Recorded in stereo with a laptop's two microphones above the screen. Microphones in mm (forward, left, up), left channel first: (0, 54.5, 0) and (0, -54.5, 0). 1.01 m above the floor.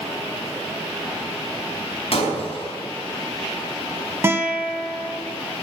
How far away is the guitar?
About 1.5 m.